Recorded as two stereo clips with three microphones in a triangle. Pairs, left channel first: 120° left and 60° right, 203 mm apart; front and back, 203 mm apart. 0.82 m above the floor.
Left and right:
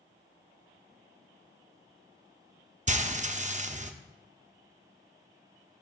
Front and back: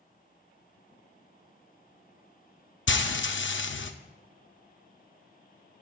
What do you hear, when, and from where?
2.9 s frying: 10° right, 0.5 m